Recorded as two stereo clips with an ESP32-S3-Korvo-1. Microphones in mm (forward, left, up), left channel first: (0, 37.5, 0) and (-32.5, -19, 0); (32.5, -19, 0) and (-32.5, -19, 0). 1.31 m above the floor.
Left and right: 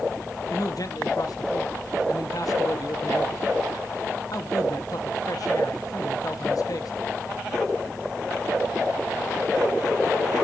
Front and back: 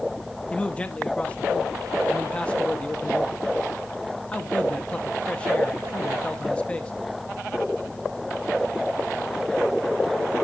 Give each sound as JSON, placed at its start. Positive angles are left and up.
{"t": 0.5, "sound": "a man speaking", "azimuth_deg": 70, "distance_m": 1.1}